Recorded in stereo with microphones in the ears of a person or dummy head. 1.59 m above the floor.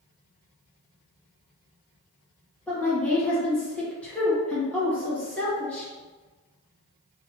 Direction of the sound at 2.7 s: 5° left (ahead or behind).